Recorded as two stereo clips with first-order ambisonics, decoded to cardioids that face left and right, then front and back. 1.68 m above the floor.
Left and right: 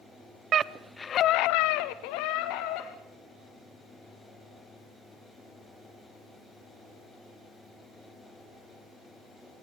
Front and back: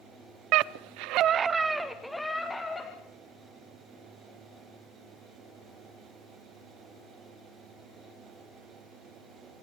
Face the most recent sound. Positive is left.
turn(degrees=80)